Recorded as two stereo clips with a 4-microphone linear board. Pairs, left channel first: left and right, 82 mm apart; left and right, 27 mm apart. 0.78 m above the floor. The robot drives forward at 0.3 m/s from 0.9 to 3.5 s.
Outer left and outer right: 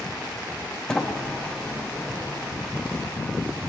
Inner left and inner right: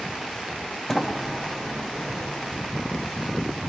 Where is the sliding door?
10° left (ahead or behind), 0.5 m; by 2.6 s 5° left (ahead or behind), 1.0 m.